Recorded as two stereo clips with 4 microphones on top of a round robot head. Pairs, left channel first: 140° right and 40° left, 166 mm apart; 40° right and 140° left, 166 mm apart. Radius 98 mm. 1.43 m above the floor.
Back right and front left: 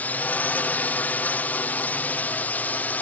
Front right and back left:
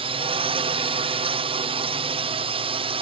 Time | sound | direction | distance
0.0 | a drone | 150° left | ?